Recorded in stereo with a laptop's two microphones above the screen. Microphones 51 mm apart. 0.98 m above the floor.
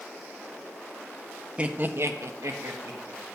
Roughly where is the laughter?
Right.